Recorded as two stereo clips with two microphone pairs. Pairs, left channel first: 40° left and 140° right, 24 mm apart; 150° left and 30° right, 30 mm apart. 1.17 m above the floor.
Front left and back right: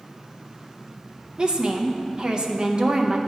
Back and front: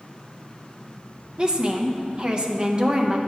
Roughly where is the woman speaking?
Right.